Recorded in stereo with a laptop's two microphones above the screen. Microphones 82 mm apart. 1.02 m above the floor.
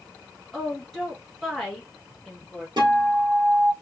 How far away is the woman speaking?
About 1.4 m.